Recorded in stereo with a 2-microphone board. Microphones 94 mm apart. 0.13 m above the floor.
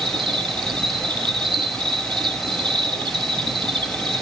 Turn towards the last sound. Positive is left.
turn(degrees=-55)  # may be behind; listen again after turning